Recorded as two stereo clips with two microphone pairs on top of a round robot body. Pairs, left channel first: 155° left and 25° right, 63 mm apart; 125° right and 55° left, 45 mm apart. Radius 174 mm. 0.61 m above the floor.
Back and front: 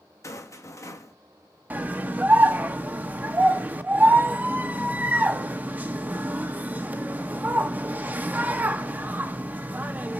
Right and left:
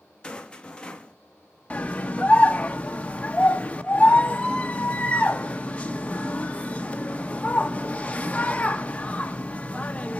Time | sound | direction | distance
0.2 | a rattle | 175° left | 1.2 m
1.7 | a scream | 75° right | 1.0 m